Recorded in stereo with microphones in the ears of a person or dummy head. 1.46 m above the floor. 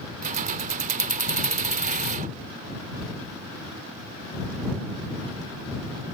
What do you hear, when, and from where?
0.2 s keys jangling: 30° right (ahead or behind)